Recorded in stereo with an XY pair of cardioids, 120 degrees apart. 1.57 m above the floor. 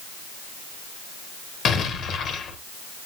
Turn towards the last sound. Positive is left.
turn(degrees=55)